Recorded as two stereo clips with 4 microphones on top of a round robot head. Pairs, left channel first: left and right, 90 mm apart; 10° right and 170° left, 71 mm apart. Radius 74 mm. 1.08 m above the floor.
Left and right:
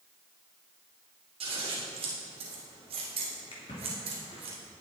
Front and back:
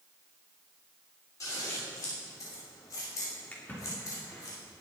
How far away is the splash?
About 3 m.